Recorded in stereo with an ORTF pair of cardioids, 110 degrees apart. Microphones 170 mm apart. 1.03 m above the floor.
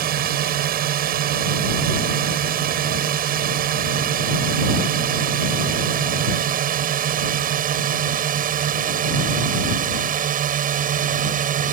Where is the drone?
65° right; by 11.7 s 55° right.